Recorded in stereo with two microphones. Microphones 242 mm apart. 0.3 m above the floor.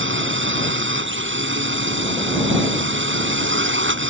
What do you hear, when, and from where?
0.0 s a drone: 55° right (ahead or behind)